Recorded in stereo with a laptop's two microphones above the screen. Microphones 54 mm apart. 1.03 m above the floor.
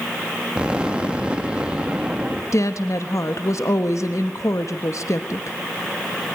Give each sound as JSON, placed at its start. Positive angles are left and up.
{"t": 0.6, "sound": "an explosion", "side_deg": -20, "distance_m": 1.9}
{"t": 2.5, "sound": "a woman speaking", "side_deg": 65, "distance_m": 1.2}